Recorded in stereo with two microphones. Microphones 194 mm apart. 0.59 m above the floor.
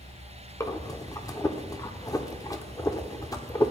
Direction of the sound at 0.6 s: 20° left (ahead or behind).